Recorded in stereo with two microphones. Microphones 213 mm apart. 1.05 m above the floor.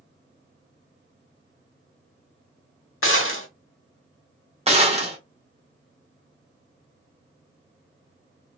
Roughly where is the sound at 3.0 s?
Left.